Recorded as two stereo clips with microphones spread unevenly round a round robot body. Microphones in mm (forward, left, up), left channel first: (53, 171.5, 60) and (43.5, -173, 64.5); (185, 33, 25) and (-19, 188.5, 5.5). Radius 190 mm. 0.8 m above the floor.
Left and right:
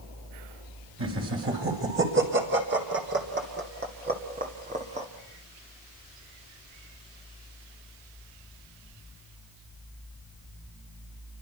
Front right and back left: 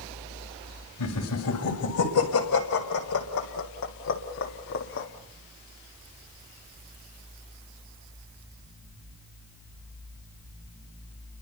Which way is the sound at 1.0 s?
35° right.